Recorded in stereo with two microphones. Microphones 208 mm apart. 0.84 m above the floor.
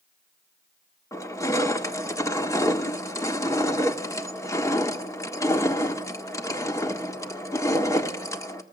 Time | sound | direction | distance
1.1 | crushing | 15° left (ahead or behind) | 1.6 m